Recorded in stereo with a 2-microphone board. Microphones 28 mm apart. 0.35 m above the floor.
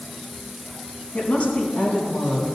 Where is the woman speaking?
55° left (ahead or behind), 3.5 m.